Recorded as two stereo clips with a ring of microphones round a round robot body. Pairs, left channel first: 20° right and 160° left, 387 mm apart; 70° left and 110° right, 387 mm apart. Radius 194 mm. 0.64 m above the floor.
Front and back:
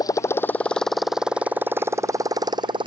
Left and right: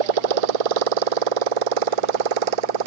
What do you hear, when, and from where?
0.0 s a motorcycle: 105° right; by 2.9 s 125° right